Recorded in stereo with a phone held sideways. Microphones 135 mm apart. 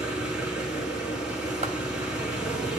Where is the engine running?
5° right (ahead or behind), 4 m.